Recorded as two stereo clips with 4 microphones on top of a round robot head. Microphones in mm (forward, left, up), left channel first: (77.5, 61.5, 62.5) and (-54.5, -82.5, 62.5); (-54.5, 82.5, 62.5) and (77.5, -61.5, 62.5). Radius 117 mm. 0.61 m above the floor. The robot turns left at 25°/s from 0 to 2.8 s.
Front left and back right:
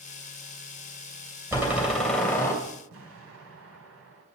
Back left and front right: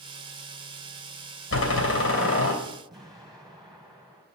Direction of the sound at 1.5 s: 150° left.